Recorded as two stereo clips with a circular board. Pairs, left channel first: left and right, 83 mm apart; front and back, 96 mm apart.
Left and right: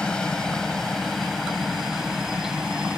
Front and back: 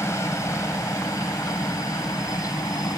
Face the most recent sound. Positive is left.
turn(degrees=-15)